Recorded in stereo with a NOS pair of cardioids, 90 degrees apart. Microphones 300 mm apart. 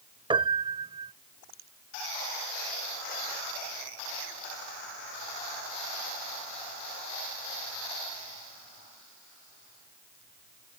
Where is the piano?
15° right.